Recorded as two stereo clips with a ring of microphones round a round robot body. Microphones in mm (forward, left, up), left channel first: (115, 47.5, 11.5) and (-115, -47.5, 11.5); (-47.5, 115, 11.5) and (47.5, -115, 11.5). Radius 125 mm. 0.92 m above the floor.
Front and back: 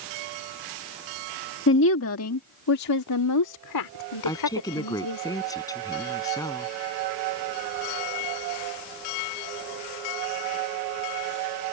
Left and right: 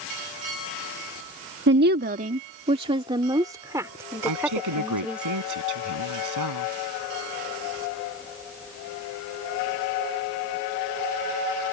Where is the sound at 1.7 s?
20° right; by 5.2 s 20° left.